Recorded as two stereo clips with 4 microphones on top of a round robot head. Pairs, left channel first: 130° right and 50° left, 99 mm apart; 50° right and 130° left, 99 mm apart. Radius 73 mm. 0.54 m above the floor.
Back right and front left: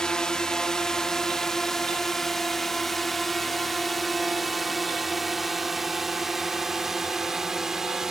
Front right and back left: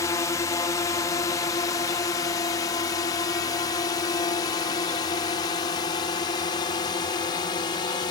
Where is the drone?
50° right; by 8.1 s 35° right.